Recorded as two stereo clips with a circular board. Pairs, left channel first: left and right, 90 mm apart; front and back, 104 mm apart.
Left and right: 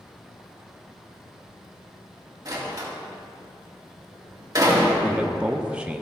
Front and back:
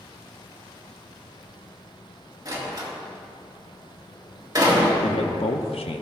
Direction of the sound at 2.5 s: 135° right.